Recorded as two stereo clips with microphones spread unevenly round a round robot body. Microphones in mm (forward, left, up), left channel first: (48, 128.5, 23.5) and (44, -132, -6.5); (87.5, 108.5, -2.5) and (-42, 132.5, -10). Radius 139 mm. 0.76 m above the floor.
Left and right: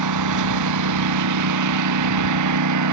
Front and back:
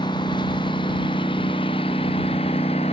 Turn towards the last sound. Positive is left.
turn(degrees=-80)